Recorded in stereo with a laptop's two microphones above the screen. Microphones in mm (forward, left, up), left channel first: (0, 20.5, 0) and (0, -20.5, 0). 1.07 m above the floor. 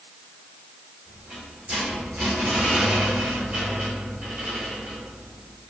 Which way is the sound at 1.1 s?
35° right (ahead or behind).